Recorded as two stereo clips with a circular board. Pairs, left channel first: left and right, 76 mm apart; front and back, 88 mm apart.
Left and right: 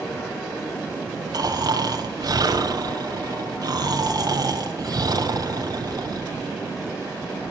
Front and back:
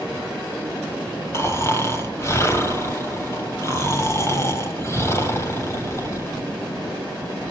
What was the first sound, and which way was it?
Snoring, 60° right.